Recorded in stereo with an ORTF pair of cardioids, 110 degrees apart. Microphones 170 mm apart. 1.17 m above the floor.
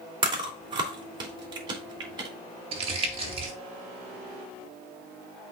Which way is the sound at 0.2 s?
25° right.